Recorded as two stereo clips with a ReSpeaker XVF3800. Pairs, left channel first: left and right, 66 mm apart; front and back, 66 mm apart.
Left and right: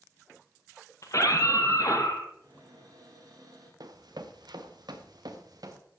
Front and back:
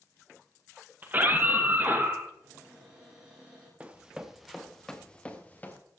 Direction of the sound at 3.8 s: 110° right.